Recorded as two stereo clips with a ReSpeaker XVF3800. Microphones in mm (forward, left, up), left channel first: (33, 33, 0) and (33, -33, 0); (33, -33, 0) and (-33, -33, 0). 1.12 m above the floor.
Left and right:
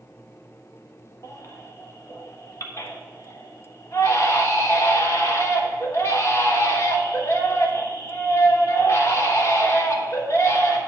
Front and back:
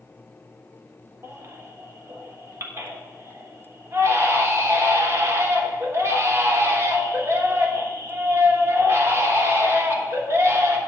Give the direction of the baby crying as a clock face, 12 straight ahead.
8 o'clock.